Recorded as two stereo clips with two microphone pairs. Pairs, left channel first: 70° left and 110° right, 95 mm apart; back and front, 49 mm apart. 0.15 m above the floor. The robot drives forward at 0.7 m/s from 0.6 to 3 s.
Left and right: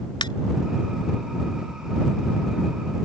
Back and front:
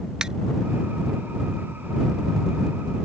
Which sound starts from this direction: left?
A ringtone, at 0.2 s.